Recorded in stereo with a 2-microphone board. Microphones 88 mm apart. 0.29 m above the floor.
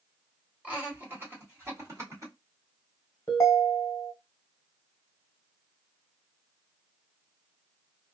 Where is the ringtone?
35° left (ahead or behind), 1.1 m.